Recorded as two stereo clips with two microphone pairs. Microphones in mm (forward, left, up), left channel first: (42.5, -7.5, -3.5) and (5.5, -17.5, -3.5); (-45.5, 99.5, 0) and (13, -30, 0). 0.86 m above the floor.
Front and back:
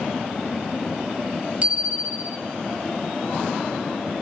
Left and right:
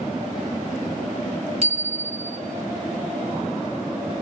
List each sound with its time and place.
1.6 s a bicycle bell: 110° right, 3.5 m